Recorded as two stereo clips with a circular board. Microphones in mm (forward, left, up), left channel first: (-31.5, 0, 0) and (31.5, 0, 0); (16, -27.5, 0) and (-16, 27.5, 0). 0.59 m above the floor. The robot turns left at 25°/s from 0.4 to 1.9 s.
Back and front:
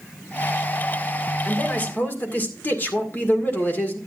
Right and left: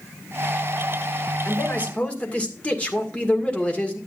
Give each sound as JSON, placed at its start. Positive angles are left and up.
{"t": 1.4, "sound": "a man speaking", "azimuth_deg": -115, "distance_m": 1.9}